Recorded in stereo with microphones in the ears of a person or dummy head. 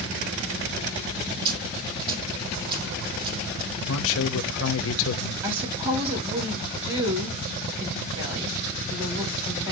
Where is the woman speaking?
30° right (ahead or behind), 4 m.